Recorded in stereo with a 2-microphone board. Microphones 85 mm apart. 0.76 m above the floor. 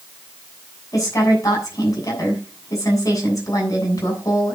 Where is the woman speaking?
40° left (ahead or behind), 7 m.